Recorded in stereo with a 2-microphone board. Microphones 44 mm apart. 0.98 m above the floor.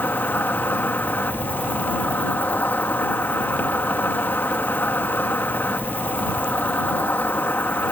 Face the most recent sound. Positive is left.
turn(degrees=50)  # may be behind; listen again after turning